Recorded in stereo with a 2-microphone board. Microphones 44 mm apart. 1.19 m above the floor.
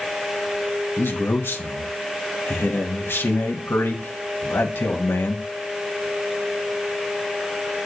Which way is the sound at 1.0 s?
60° left (ahead or behind).